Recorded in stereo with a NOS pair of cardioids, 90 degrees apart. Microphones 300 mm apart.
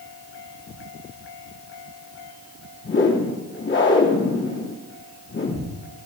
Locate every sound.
2.8 s a whoosh: 40° left, 4 m